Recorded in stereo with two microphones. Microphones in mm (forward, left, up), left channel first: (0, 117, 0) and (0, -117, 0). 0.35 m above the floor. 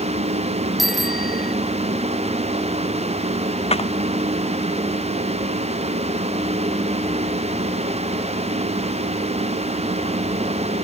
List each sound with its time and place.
0.8 s a bicycle bell: centre (ahead or behind)
3.7 s a clap: 25° left (ahead or behind)